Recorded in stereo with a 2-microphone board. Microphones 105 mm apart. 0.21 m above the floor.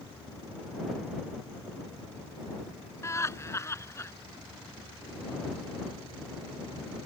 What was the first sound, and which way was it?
Laughter, 25° left (ahead or behind).